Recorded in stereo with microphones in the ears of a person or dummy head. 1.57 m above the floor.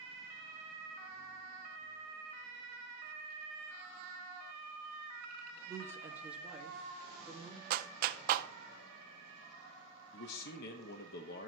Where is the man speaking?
55° left (ahead or behind), 0.8 m.